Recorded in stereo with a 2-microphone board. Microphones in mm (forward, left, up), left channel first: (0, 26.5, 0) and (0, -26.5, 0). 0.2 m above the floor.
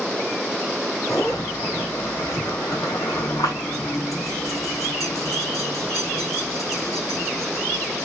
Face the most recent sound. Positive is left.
turn(degrees=85)